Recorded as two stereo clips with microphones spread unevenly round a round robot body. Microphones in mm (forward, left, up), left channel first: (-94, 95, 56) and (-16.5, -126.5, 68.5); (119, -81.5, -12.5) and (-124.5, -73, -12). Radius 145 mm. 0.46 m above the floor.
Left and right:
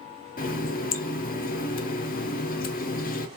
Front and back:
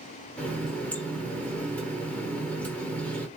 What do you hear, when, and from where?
0.4 s a running tap: 80° left, 0.5 m